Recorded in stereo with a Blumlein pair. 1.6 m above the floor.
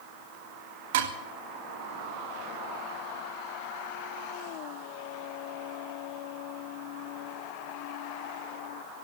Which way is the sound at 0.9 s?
55° right.